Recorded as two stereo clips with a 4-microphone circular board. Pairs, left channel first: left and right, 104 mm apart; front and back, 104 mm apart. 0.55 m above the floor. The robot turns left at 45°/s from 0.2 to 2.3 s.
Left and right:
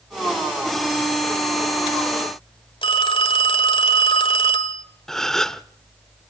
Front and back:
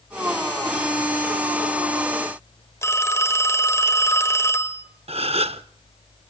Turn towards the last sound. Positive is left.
turn(degrees=175)